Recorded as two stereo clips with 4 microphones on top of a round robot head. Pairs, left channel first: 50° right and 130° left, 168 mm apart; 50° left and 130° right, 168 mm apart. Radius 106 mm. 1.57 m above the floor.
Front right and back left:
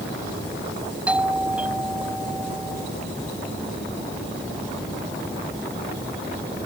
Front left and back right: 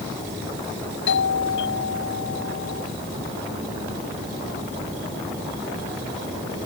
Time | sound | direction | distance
1.1 | a doorbell | 45° left | ?